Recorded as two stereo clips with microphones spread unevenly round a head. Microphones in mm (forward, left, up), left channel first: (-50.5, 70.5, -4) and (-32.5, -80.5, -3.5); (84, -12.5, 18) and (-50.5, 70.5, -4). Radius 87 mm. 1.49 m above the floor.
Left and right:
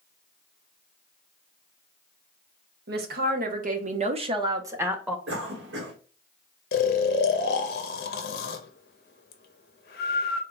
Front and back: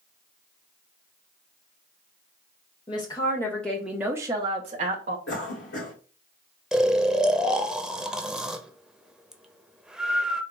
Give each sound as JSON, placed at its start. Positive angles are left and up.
{"t": 2.9, "sound": "a woman speaking", "azimuth_deg": -95, "distance_m": 1.1}
{"t": 5.3, "sound": "a cough", "azimuth_deg": -60, "distance_m": 1.2}
{"t": 6.7, "sound": "snoring", "azimuth_deg": 65, "distance_m": 0.6}